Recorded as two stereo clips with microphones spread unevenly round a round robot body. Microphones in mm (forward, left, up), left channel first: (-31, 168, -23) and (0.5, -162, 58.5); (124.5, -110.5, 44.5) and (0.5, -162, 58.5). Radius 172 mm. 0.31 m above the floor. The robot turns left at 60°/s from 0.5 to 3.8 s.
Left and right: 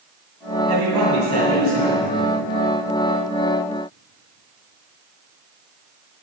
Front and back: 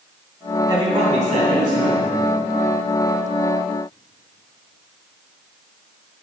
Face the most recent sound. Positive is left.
turn(degrees=80)